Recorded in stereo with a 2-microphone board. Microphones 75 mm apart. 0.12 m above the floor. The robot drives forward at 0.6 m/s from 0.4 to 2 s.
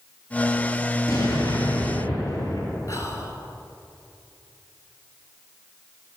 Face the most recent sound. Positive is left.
turn(degrees=45)  # may be behind; listen again after turning